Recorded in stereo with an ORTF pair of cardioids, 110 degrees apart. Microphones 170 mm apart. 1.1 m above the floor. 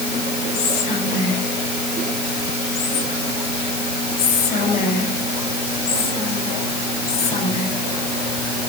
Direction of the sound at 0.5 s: 55° left.